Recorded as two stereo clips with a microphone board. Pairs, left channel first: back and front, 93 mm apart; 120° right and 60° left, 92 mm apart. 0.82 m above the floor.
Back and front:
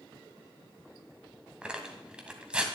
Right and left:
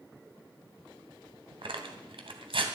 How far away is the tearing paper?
About 1.9 m.